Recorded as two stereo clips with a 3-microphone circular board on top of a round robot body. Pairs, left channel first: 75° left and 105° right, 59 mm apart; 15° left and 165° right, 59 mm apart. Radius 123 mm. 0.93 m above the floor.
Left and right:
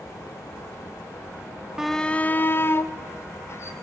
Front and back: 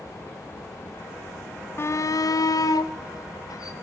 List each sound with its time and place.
1.8 s a shout: 25° right, 0.7 m; by 3.7 s 35° left, 3.5 m